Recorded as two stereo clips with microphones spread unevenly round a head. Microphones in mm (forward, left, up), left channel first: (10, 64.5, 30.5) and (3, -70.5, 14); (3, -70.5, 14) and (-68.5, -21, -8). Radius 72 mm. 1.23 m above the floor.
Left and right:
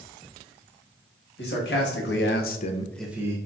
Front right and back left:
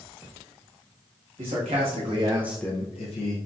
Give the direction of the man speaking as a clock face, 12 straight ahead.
9 o'clock.